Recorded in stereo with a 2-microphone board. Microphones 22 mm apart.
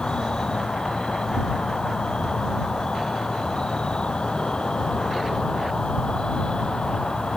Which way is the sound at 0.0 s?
40° left (ahead or behind).